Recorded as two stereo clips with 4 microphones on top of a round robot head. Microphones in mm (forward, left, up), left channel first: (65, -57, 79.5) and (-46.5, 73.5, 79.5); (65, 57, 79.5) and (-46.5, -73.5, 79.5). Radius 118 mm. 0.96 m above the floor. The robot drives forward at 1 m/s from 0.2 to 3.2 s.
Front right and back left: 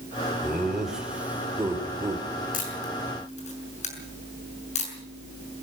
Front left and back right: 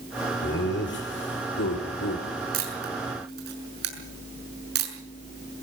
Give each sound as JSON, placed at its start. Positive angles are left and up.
{"t": 0.4, "sound": "laughter", "azimuth_deg": 40, "distance_m": 4.5}
{"t": 2.5, "sound": "a camera shutter", "azimuth_deg": -95, "distance_m": 6.0}